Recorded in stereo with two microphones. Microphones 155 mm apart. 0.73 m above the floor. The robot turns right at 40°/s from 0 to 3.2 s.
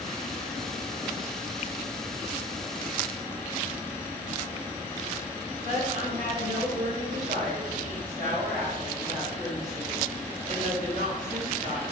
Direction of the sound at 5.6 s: 55° right (ahead or behind).